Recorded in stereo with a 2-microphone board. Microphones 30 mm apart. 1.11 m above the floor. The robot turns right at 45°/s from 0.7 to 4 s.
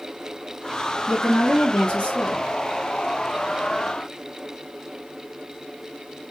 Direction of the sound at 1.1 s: 15° left.